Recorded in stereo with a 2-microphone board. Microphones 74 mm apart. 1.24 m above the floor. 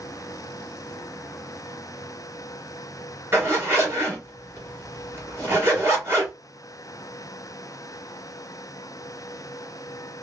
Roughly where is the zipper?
Right.